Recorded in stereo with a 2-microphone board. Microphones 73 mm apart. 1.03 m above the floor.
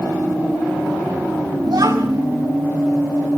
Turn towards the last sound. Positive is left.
turn(degrees=-65)  # may be behind; listen again after turning